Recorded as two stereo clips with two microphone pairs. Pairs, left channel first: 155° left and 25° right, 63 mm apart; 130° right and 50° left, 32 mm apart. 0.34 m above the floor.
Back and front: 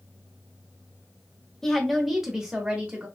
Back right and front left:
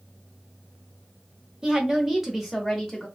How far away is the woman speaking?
About 0.9 m.